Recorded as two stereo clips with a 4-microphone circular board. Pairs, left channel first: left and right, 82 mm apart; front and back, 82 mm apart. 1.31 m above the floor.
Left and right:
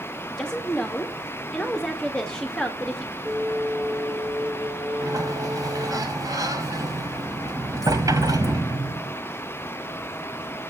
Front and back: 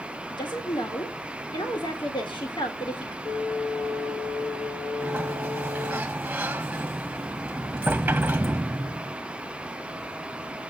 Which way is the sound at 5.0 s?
110° right.